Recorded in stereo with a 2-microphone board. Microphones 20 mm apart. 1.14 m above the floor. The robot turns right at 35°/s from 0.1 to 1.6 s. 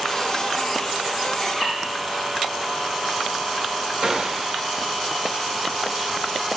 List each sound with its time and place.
1.4 s a bird: 20° left (ahead or behind), 5 m; by 1.8 s 30° left (ahead or behind), 5 m
4.0 s a gunshot: 40° right (ahead or behind), 1.7 m